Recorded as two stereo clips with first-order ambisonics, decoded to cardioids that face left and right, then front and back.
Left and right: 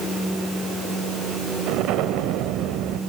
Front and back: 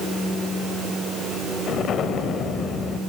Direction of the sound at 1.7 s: 60° right.